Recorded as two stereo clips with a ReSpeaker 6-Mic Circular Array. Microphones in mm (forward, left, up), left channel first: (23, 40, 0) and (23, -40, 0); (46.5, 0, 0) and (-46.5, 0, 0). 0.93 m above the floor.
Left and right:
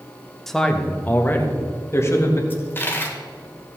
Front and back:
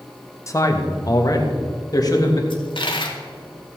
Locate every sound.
0.5 s a man speaking: 5° left, 1.0 m; by 2.4 s 40° left, 1.9 m
2.5 s a dropped coin: 25° left, 1.5 m